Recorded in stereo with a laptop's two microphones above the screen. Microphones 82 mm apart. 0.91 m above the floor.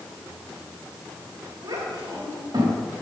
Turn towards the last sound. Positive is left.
turn(degrees=-60)  # may be behind; listen again after turning